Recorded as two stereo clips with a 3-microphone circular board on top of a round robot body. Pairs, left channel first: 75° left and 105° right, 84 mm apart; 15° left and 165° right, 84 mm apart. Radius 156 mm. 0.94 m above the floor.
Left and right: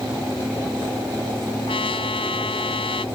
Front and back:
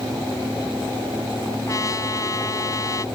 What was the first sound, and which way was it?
A trumpet, 65° left.